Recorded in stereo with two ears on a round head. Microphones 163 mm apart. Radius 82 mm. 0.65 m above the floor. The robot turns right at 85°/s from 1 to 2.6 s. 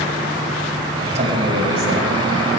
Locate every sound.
1.1 s a man speaking: 140° right, 3 m; by 2.1 s 60° right, 3 m